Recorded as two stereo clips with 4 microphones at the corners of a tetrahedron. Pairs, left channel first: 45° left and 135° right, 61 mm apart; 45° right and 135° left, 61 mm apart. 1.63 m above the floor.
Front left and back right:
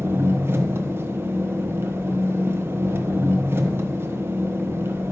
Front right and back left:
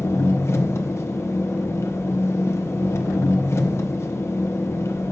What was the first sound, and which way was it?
An engine running, 85° right.